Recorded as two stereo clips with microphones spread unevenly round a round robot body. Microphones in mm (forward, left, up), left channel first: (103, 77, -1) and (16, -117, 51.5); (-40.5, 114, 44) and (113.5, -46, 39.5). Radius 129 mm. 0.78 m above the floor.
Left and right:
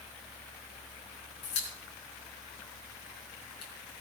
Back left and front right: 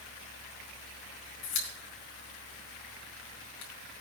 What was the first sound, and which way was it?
A pop, 140° left.